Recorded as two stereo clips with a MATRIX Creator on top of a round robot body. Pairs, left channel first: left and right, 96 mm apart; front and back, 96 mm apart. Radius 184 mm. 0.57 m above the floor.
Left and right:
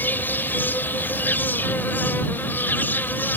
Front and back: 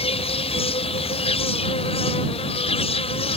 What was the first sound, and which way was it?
An insect, 20° left.